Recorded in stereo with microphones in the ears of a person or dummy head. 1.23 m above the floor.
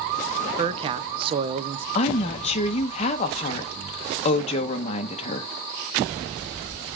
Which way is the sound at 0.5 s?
30° right (ahead or behind).